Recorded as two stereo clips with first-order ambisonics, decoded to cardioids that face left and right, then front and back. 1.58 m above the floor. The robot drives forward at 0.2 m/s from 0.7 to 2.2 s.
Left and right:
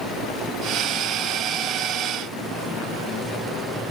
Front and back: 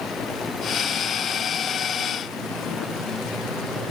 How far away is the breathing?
No breathing in this recording.